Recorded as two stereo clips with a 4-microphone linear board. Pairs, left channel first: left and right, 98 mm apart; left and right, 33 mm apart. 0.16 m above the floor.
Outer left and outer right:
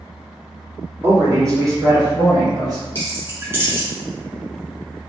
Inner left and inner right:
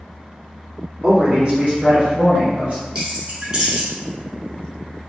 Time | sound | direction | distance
1.0 | a man speaking | 25° right (ahead or behind) | 1.2 m
3.0 | keys jangling | 25° right (ahead or behind) | 1.3 m